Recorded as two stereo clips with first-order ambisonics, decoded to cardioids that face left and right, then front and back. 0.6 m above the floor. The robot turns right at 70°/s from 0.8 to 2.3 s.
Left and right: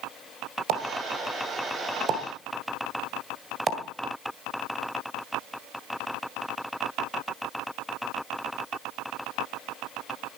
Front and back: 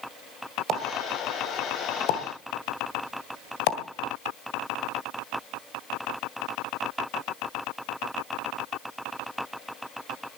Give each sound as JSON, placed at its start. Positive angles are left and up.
{"t": 0.7, "sound": "a pop", "azimuth_deg": -125, "distance_m": 1.7}